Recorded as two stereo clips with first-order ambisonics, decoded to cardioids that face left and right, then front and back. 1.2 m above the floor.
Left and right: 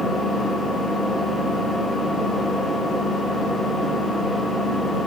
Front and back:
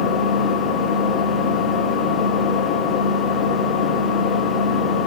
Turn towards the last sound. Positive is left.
turn(degrees=5)